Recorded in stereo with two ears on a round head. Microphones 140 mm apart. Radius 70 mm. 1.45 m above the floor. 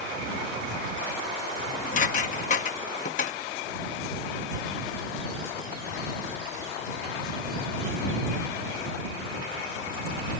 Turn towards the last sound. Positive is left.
turn(degrees=50)  # may be behind; listen again after turning